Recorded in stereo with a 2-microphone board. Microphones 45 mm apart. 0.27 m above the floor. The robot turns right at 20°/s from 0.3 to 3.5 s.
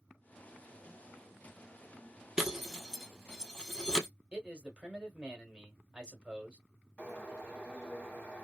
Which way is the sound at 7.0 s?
20° left (ahead or behind).